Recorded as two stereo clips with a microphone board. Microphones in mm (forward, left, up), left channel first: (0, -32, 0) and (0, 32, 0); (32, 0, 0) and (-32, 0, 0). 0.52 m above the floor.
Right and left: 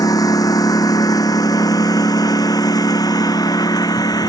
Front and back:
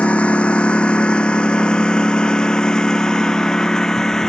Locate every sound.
0.0 s a lawn mower: 70° right; by 4.3 s 80° right